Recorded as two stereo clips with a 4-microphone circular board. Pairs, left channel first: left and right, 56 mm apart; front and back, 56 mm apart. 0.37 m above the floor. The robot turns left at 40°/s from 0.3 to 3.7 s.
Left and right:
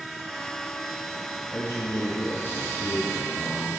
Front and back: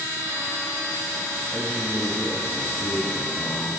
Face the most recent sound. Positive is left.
turn(degrees=-10)